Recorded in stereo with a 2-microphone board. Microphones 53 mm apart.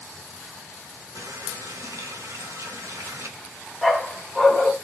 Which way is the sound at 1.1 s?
70° right (ahead or behind).